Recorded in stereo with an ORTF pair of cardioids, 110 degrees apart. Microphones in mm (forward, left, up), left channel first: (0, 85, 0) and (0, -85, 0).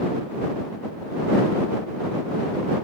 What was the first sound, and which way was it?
Only background noise.